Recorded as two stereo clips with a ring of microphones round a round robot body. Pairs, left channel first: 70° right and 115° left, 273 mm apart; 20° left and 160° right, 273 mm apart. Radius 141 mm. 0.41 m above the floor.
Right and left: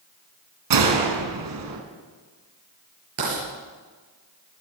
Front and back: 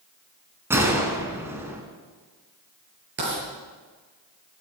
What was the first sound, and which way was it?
A gunshot, 120° left.